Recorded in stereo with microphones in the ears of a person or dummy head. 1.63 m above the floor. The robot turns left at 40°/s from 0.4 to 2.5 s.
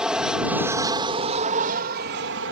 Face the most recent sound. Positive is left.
turn(degrees=-90)